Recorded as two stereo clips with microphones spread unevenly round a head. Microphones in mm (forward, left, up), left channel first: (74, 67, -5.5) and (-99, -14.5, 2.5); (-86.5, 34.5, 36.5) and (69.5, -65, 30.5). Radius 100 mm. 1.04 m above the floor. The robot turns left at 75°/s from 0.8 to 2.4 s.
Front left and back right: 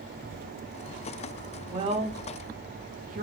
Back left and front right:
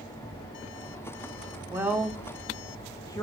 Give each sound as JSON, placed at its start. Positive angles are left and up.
{"t": 1.7, "sound": "a woman speaking", "azimuth_deg": -95, "distance_m": 0.5}